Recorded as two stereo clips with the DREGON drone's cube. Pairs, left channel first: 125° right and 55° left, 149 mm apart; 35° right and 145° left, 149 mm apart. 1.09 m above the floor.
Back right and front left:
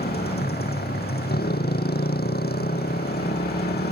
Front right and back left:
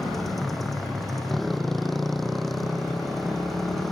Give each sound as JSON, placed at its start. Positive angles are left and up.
{"t": 0.0, "sound": "a motorcycle", "azimuth_deg": -125}